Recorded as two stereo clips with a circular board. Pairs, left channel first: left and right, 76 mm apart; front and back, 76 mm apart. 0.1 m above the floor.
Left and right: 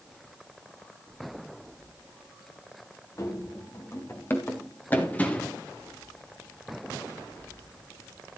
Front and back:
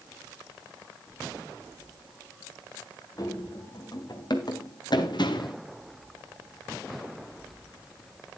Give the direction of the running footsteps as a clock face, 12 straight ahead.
11 o'clock.